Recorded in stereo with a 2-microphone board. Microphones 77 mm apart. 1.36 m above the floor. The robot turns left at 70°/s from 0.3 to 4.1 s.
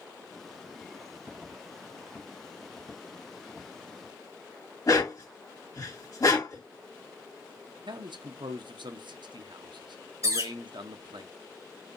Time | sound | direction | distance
4.9 | a dog barking | 55° left (ahead or behind) | 2 m
7.9 | a man speaking | 75° right (ahead or behind) | 0.7 m
10.2 | a bird | 45° right (ahead or behind) | 2.5 m